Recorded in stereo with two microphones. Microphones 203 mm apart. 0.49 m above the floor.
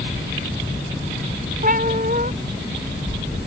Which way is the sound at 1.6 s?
45° right (ahead or behind).